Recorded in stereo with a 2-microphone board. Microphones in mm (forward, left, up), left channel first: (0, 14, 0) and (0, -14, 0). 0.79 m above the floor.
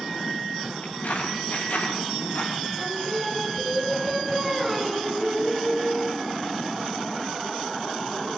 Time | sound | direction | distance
0.8 | footsteps | 85° left | 8.5 m
2.8 | singing | 5° left (ahead or behind) | 4 m